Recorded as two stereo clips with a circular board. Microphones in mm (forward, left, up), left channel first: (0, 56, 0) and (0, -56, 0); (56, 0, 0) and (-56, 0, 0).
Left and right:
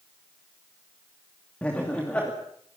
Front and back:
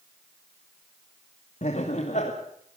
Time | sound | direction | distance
1.6 | laughter | 10° left | 2.5 m